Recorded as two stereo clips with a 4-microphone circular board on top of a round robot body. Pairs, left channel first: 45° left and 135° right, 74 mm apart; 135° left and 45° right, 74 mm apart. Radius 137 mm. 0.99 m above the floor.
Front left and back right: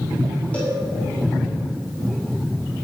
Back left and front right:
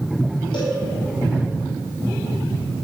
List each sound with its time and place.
0.5 s a cowbell: 120° left, 4.5 m